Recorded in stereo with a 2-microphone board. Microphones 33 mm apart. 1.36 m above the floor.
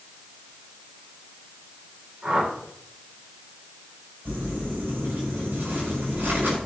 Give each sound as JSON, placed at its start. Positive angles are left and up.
{"t": 2.2, "sound": "a whoosh", "side_deg": -30, "distance_m": 5.5}
{"t": 4.2, "sound": "crumpling", "side_deg": -80, "distance_m": 6.0}